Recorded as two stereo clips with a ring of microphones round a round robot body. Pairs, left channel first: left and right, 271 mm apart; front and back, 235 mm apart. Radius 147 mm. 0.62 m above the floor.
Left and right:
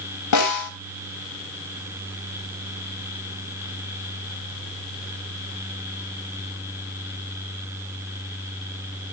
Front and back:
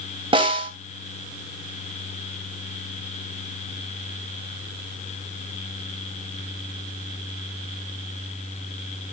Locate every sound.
0.3 s a snare drum: 110° left, 3 m